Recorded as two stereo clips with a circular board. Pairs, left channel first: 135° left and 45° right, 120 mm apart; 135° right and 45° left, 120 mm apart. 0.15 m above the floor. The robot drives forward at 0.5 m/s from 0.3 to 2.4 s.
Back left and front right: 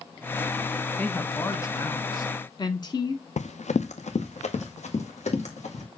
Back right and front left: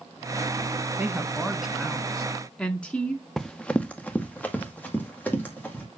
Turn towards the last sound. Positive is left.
turn(degrees=150)